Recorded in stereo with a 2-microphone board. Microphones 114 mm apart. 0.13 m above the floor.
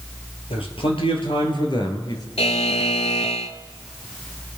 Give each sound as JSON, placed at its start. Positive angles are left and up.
{"t": 0.5, "sound": "a man speaking", "side_deg": 55, "distance_m": 3.0}
{"t": 2.4, "sound": "a buzzer", "side_deg": 65, "distance_m": 0.7}